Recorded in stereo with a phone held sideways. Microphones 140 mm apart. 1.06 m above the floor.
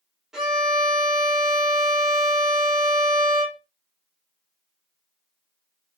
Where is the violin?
5° right (ahead or behind), 1.4 m.